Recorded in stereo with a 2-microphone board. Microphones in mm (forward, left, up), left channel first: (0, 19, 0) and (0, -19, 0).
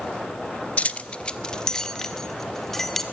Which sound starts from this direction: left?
Keys jangling, at 0.8 s.